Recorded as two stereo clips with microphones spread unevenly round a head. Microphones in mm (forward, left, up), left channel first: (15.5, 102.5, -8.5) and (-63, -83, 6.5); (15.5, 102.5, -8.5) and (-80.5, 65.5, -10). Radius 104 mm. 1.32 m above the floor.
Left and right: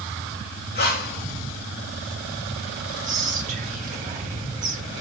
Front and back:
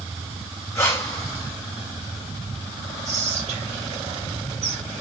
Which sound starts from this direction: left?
Breathing, at 0.8 s.